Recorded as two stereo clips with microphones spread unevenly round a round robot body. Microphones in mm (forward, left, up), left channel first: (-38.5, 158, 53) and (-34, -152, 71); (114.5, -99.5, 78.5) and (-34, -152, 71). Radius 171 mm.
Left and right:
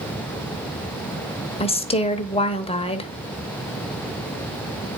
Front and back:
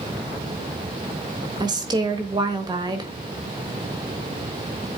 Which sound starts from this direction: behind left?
A woman speaking, at 1.6 s.